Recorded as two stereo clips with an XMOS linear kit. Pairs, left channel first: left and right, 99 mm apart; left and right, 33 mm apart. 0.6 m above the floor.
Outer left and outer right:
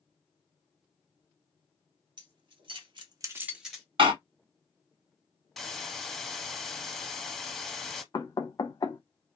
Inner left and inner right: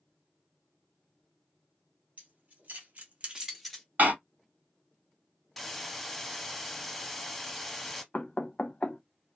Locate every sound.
2.2 s keys jangling: 55° right (ahead or behind), 1.7 m; by 3.9 s 5° left (ahead or behind), 1.2 m
4.0 s a door slam: 70° right (ahead or behind), 1.9 m
5.6 s a hiss: centre (ahead or behind), 0.6 m
8.1 s knocking: 40° left (ahead or behind), 0.7 m